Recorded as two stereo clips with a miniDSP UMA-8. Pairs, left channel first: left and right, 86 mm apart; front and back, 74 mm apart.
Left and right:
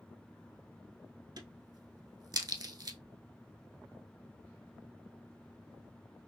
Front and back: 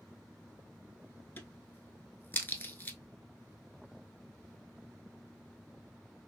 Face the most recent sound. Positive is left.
turn(degrees=-60)